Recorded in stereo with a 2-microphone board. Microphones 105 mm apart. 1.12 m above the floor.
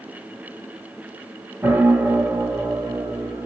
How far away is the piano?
About 1.5 m.